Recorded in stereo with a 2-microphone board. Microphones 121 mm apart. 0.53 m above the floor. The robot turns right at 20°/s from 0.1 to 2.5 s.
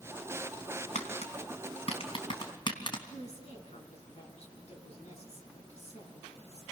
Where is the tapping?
70° left (ahead or behind), 3 m; by 3.0 s 40° left (ahead or behind), 3 m.